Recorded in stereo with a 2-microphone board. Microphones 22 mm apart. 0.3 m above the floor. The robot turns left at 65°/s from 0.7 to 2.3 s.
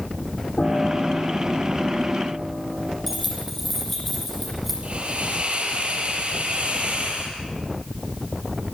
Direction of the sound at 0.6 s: 65° left.